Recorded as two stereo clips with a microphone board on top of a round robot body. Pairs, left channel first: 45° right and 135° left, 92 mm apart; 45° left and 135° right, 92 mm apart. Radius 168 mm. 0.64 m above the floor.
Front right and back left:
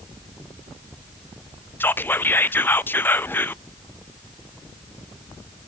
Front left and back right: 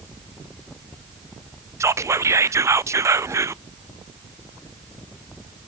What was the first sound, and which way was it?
Whispering, 100° right.